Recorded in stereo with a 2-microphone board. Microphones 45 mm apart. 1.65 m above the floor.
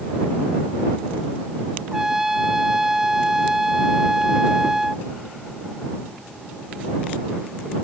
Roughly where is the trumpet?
Centre.